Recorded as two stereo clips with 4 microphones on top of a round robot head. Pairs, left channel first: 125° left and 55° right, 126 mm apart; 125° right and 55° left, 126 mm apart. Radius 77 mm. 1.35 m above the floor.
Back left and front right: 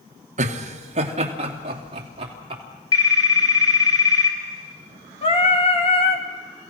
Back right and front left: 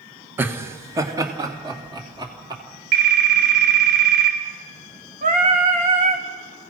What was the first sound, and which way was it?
Laughter, 25° right.